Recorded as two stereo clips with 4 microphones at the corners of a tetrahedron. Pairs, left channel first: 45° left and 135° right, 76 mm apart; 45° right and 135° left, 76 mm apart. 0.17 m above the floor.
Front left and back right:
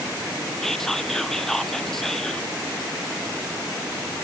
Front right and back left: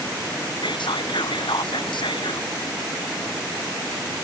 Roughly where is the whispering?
Ahead right.